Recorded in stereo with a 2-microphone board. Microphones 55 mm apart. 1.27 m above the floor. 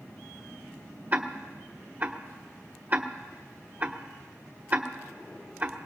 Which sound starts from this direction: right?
Ticking, at 1.1 s.